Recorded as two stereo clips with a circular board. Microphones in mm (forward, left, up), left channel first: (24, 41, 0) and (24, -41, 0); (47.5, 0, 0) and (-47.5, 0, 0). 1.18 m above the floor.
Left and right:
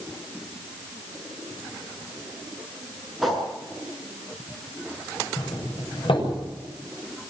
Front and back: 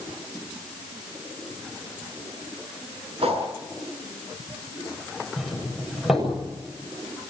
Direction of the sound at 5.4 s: 90° left.